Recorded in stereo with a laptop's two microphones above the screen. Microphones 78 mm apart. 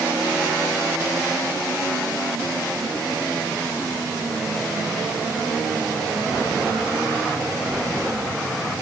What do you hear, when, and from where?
Only background noise.